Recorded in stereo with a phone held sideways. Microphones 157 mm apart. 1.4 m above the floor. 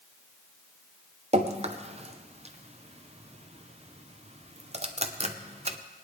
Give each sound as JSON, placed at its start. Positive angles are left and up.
{"t": 1.3, "sound": "dripping", "side_deg": -45, "distance_m": 0.7}